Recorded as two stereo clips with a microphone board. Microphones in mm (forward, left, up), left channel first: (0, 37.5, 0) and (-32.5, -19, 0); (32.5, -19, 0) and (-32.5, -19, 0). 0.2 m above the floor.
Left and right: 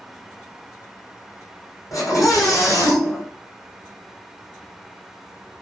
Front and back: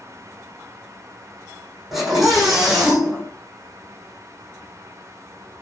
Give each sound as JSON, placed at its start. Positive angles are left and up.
{"t": 1.9, "sound": "a scream", "azimuth_deg": 95, "distance_m": 8.5}